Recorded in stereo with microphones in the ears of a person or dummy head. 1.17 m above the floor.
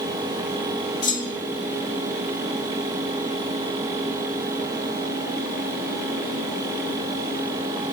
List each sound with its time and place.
1.0 s a clunk: 25° left (ahead or behind), 3.5 m